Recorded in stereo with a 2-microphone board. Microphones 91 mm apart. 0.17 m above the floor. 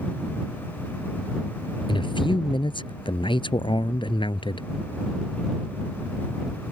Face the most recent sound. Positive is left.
turn(degrees=65)  # may be behind; listen again after turning